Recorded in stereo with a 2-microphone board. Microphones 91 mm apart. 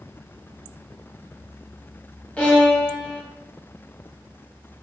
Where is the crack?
I don't hear a crack.